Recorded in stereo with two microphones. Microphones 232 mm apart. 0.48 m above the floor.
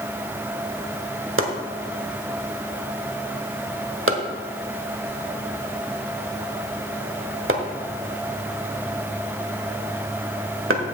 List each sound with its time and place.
1.4 s chopping: 65° right (ahead or behind), 1.2 m